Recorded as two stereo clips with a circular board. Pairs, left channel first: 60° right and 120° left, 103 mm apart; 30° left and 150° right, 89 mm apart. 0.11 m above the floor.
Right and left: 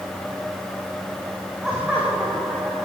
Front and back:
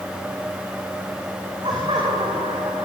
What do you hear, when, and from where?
1.6 s laughter: 160° right, 8.5 m